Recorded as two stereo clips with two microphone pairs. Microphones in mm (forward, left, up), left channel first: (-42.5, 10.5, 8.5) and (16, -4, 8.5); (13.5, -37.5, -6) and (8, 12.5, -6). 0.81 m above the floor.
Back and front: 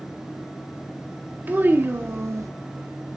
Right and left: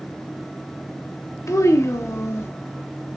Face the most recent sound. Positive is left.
turn(degrees=-50)